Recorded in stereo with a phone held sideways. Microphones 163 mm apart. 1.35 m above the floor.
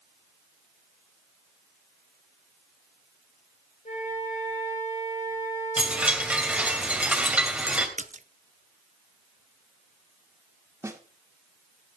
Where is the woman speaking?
I don't hear a woman speaking.